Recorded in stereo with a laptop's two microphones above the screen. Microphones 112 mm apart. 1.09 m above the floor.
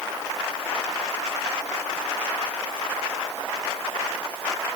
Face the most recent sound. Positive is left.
No sound to turn to.